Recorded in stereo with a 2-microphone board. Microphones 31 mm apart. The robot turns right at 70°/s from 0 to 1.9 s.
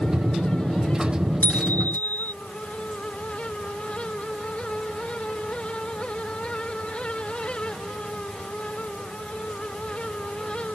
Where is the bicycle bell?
65° left; by 2.3 s 100° left.